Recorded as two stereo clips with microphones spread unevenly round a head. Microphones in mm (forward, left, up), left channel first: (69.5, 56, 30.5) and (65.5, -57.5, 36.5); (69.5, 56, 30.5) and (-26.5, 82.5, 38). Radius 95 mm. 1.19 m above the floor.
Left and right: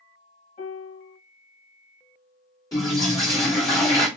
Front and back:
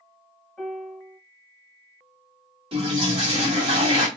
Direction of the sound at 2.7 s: 155° left.